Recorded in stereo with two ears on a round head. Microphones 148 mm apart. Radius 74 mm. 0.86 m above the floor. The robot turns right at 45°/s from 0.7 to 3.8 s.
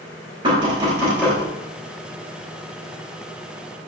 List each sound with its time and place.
0.4 s knocking: 30° right (ahead or behind), 3.5 m; by 1.4 s centre (ahead or behind), 3.5 m